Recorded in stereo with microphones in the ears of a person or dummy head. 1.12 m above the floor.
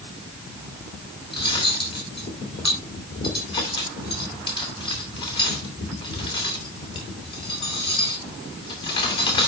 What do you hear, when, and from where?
1.3 s cutlery clinking: 20° left (ahead or behind), 2.5 m